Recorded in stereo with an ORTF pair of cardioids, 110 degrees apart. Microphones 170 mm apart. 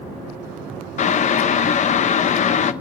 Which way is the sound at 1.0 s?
45° left.